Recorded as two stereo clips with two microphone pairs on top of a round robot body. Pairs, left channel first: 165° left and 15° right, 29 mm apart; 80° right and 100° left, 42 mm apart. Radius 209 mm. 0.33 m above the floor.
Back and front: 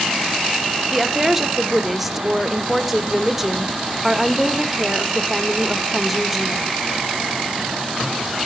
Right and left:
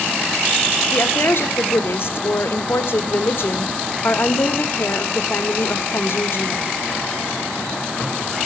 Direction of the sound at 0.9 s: 95° right.